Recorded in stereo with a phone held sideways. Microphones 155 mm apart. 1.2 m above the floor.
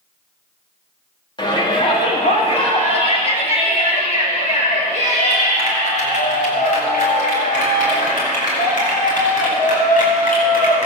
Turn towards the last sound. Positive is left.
turn(degrees=55)  # may be behind; listen again after turning